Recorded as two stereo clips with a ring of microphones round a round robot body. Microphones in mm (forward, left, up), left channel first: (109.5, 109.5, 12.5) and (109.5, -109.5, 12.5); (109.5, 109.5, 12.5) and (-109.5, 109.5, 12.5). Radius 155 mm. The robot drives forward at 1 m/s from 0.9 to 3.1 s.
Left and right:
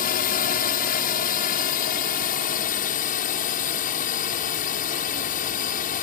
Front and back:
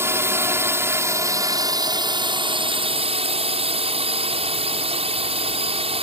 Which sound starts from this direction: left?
A drone, at 0.0 s.